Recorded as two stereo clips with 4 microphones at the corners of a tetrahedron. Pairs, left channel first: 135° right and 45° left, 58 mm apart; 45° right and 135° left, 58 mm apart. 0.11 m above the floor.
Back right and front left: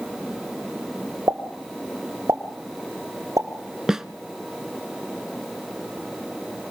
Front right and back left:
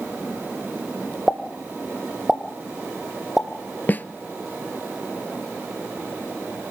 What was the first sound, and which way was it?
A pop, 45° left.